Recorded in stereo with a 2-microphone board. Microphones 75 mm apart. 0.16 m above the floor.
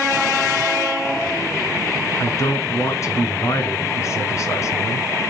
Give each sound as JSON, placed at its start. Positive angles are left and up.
{"t": 2.2, "sound": "a man speaking", "side_deg": 40, "distance_m": 2.0}